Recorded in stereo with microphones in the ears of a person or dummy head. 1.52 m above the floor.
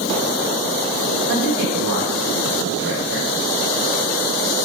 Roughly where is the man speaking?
Right.